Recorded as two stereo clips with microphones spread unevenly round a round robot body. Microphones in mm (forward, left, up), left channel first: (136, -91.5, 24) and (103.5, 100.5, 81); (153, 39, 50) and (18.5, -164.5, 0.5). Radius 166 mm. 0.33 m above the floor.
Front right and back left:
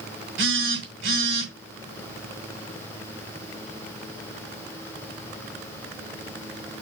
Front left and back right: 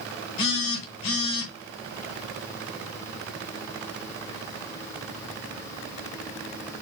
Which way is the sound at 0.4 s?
80° left.